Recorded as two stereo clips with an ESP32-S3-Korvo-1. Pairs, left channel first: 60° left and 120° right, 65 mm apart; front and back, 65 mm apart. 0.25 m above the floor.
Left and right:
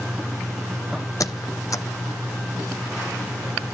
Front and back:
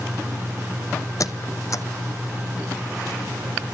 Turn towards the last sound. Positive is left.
turn(degrees=30)